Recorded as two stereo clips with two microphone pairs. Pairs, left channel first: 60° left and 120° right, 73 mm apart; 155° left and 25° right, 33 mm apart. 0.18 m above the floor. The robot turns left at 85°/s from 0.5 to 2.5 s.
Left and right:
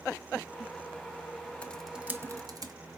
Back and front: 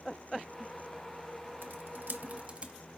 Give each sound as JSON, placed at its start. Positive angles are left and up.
{"t": 1.6, "sound": "typing on a keyboard", "azimuth_deg": -10, "distance_m": 0.6}